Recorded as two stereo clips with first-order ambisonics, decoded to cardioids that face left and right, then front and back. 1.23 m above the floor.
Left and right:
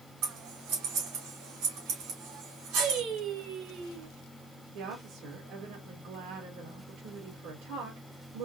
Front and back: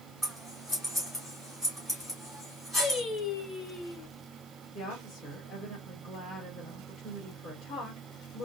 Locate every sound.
0.2 s scissors: 90° right, 1.9 m
2.8 s singing: 70° right, 0.9 m
4.8 s a woman speaking: 85° right, 1.8 m